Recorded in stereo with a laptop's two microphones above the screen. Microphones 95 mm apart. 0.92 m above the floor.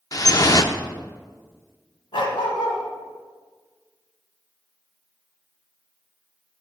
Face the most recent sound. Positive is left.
turn(degrees=70)  # may be behind; listen again after turning